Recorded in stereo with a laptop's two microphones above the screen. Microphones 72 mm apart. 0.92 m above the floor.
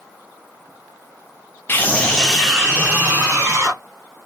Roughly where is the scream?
Left.